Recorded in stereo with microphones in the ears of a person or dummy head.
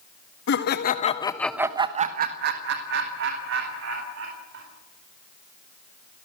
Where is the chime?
No chime in this recording.